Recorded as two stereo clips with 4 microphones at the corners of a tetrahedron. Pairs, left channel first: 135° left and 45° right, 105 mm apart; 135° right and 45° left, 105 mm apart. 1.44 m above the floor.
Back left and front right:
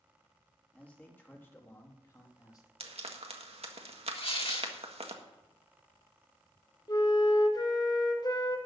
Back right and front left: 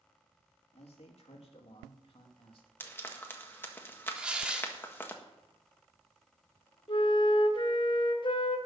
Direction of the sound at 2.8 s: 65° right.